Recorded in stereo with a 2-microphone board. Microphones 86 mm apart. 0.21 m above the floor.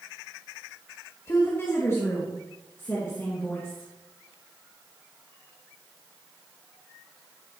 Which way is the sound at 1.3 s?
35° left (ahead or behind).